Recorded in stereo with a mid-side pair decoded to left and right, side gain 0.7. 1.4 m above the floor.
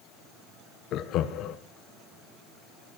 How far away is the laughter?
About 0.8 m.